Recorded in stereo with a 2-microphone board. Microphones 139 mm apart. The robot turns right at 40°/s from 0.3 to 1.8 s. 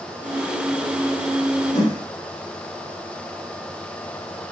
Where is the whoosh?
70° left (ahead or behind), 2.5 m.